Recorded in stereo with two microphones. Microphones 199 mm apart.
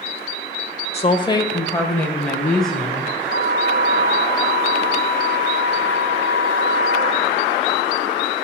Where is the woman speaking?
30° left (ahead or behind), 1.2 m; by 3.1 s centre (ahead or behind), 3.5 m.